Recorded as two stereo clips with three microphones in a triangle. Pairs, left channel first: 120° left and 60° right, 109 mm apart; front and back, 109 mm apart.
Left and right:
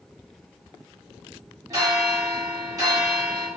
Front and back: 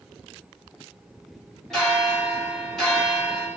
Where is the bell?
80° right, 1.3 m.